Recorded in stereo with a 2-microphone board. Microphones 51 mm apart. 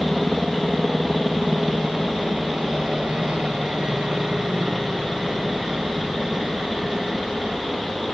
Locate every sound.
0.0 s a helicopter: 15° right (ahead or behind)